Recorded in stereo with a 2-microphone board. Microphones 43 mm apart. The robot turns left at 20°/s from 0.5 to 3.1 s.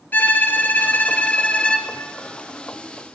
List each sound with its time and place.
0.1 s a violin: 45° left (ahead or behind), 0.7 m; by 1.9 s 20° left (ahead or behind), 0.7 m